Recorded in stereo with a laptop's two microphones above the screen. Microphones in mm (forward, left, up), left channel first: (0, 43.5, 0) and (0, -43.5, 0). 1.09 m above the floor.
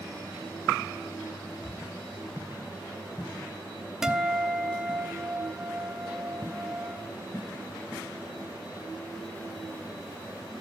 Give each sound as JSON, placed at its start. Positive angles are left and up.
{"t": 4.0, "sound": "a guitar", "side_deg": -5, "distance_m": 0.8}